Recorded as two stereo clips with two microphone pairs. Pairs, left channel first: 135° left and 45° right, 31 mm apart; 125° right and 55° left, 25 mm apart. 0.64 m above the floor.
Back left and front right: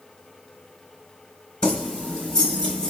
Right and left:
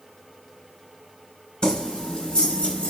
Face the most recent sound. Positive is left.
turn(degrees=-160)